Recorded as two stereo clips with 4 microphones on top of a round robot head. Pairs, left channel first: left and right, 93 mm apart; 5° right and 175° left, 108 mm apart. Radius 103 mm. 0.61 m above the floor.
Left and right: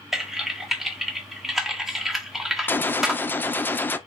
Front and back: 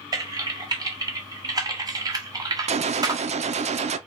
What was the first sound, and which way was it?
Typing on a keyboard, 175° right.